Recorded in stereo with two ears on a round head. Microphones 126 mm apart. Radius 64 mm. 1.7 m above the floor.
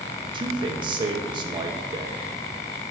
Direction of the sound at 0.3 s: 35° right (ahead or behind).